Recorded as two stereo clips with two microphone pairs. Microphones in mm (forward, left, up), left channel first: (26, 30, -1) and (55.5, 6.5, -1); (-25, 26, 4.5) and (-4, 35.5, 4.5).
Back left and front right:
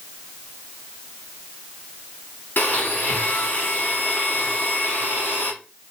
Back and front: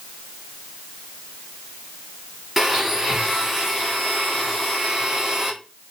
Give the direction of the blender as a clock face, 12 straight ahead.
8 o'clock.